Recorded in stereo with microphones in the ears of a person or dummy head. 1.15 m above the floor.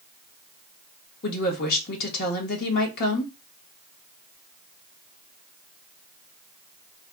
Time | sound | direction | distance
1.2 | a woman speaking | 50° left (ahead or behind) | 1.4 m